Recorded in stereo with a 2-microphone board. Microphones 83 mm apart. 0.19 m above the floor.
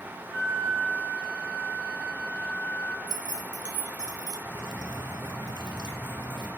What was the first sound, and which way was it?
A flute, 35° left (ahead or behind).